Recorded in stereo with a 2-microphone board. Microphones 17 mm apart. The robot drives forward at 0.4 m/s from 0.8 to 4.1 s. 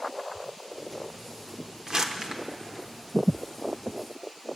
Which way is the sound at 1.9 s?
55° right (ahead or behind).